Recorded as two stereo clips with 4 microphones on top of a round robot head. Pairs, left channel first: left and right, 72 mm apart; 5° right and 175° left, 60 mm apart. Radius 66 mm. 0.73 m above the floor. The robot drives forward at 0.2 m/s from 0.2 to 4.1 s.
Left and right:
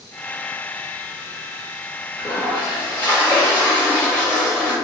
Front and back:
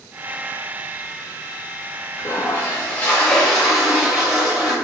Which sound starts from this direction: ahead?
A toilet flushing, at 2.2 s.